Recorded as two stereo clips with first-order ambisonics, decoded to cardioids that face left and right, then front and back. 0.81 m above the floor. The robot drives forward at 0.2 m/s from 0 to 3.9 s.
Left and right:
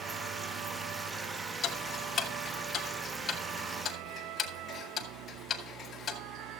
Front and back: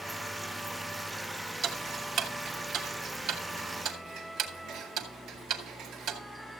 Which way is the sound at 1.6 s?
140° left.